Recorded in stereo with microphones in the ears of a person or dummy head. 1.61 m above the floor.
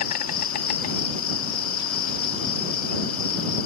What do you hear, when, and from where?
0.0 s an insect: 55° left (ahead or behind)